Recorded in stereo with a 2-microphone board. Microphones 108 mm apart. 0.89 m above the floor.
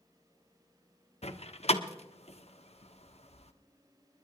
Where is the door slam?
70° left (ahead or behind), 1.0 m.